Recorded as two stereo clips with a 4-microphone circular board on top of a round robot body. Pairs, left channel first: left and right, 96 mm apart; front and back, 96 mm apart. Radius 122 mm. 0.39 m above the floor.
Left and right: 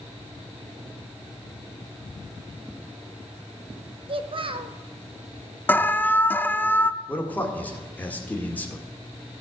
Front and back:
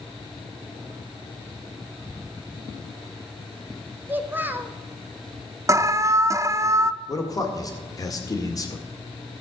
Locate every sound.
4.1 s a child speaking: 110° right, 1.1 m
5.7 s an alarm: 150° left, 0.6 m
7.1 s a man speaking: 25° left, 1.8 m